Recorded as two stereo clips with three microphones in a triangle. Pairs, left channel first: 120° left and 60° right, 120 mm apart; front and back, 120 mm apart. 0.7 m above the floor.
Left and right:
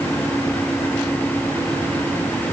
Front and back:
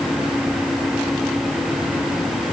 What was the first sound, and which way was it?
Only background noise.